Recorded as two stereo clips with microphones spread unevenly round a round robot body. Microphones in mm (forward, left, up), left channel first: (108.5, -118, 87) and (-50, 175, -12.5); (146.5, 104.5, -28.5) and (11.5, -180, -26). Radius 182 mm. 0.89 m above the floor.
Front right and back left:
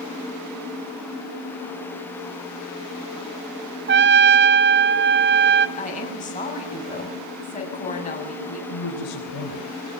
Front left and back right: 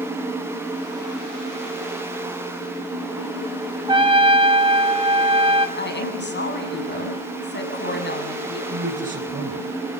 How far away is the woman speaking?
About 7.5 m.